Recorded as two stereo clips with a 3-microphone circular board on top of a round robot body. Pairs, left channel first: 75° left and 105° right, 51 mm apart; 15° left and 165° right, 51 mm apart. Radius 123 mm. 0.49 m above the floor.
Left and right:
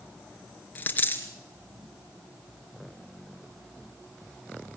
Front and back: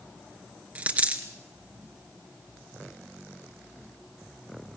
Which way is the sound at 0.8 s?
135° left.